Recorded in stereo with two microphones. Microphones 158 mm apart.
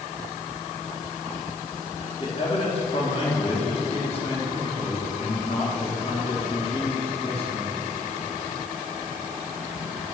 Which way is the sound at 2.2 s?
40° left (ahead or behind).